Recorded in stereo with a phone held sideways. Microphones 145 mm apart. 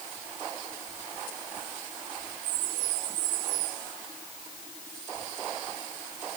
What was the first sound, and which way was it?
Only background noise.